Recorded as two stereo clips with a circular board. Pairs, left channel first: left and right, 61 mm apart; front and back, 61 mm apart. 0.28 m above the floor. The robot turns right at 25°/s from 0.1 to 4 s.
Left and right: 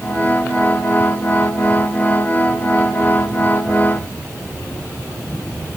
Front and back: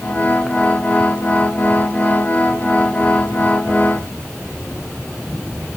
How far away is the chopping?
No chopping in this recording.